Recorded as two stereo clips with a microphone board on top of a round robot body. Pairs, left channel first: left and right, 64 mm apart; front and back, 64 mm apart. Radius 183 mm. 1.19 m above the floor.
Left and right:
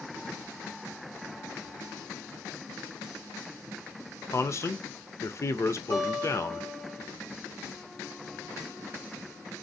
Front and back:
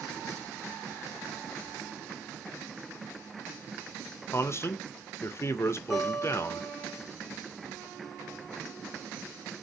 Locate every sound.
4.3 s a man speaking: 45° left, 0.7 m
5.9 s a guitar: 105° left, 2.5 m